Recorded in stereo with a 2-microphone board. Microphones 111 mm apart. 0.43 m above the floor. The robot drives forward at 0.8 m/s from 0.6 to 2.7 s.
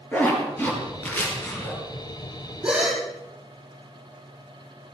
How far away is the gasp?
About 4.5 m.